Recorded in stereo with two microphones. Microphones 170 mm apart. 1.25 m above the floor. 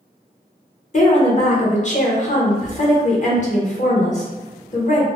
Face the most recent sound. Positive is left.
turn(degrees=45)  # may be behind; listen again after turning